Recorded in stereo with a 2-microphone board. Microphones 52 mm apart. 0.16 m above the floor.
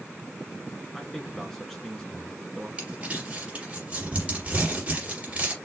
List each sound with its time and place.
0.9 s a man speaking: 10° left (ahead or behind), 1.7 m
2.8 s crumpling: 25° right (ahead or behind), 3 m